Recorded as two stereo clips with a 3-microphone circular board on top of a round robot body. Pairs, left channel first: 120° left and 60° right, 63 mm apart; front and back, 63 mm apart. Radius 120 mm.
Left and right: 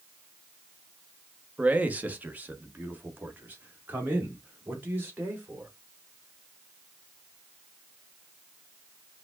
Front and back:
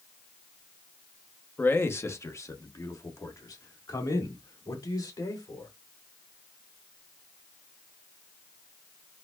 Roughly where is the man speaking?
Ahead.